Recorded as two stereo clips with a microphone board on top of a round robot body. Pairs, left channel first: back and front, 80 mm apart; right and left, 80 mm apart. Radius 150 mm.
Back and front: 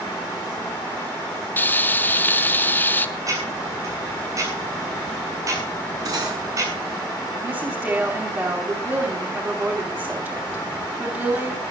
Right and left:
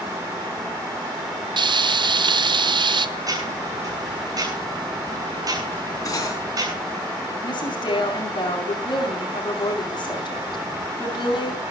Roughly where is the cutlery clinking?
Ahead right.